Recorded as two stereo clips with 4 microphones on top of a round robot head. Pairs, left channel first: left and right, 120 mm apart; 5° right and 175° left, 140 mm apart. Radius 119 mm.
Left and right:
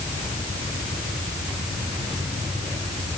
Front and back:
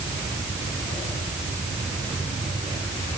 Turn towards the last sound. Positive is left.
No sound to turn to.